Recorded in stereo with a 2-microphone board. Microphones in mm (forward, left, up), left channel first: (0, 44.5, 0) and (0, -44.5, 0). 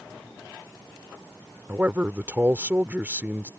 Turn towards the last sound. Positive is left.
turn(degrees=-20)  # may be behind; listen again after turning